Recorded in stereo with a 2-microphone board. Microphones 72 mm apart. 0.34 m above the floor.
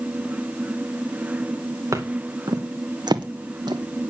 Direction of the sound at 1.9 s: 45° right (ahead or behind).